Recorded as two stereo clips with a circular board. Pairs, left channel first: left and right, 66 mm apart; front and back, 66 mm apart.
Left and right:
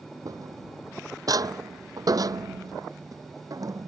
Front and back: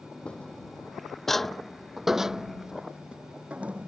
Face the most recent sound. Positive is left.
turn(degrees=-115)